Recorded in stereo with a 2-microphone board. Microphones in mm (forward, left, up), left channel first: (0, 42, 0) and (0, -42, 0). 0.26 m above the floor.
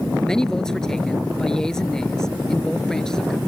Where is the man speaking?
10° left (ahead or behind).